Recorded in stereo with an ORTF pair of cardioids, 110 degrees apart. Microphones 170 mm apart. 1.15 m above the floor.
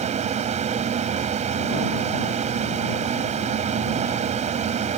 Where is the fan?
45° right.